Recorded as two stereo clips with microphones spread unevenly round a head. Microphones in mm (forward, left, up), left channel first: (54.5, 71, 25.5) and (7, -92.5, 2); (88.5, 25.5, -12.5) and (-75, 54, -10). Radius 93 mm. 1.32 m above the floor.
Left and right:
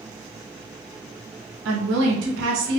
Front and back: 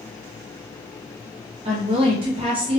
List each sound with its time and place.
1.6 s a woman speaking: 125° right, 1.3 m